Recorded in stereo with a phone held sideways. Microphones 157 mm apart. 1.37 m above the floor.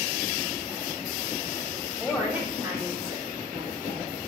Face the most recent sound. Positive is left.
turn(degrees=-70)  # may be behind; listen again after turning